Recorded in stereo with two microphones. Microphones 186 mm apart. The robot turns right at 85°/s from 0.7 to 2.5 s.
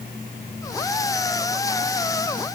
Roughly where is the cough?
No cough in this recording.